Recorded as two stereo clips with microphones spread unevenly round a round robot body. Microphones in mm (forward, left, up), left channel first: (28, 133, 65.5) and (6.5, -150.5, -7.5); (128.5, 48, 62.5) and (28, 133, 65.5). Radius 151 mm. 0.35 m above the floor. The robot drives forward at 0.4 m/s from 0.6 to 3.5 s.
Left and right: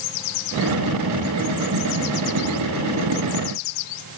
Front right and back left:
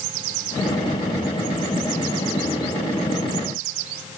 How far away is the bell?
No bell in this recording.